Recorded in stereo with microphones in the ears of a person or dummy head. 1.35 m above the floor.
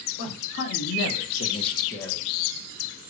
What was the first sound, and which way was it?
A man speaking, 65° left (ahead or behind).